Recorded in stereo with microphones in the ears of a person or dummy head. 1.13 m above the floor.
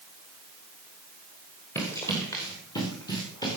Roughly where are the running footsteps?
Centre.